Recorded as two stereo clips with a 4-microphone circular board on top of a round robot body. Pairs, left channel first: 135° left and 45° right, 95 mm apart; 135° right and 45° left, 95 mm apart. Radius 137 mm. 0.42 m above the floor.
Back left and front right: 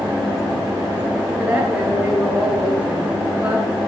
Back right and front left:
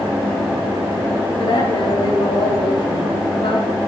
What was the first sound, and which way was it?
A woman speaking, 120° right.